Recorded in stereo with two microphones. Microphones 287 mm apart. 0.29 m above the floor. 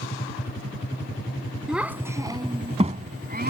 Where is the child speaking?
5° right (ahead or behind); by 3.5 s 35° right (ahead or behind).